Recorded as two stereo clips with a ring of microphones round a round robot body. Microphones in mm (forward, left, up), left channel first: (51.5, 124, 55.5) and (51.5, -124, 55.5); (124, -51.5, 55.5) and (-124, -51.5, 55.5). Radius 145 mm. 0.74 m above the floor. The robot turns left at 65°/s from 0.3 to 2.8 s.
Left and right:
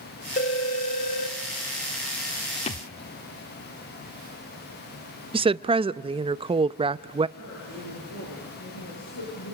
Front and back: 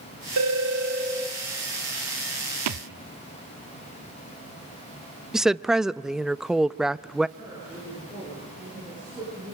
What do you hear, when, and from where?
0.4 s a phone ringing: 155° left, 1.1 m; by 1.4 s 85° left, 1.1 m
2.7 s a thud: 160° left, 0.8 m; by 2.9 s 150° left, 0.8 m
5.3 s a woman speaking: 95° right, 0.5 m
7.4 s a woman speaking: 105° left, 9 m